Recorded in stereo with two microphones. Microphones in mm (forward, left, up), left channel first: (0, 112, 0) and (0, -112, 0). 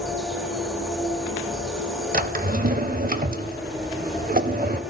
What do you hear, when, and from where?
0.0 s an insect: 5° right (ahead or behind), 3.5 m
2.1 s a drawer: 40° right (ahead or behind), 0.9 m